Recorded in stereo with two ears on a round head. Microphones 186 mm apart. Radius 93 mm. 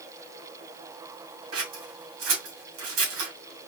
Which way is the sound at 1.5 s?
70° right (ahead or behind).